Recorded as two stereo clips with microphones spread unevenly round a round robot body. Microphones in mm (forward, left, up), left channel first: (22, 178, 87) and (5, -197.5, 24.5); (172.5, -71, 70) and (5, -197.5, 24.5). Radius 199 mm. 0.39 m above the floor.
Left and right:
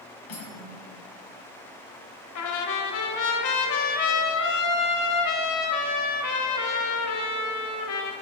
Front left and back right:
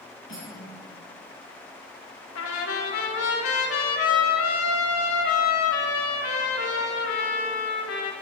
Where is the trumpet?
45° left, 1.0 m.